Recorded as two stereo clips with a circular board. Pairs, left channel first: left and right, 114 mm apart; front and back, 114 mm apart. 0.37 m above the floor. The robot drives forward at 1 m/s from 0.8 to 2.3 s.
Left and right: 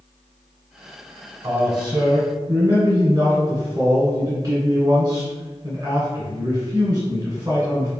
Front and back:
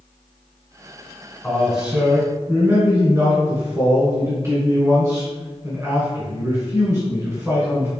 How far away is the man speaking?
About 1.3 m.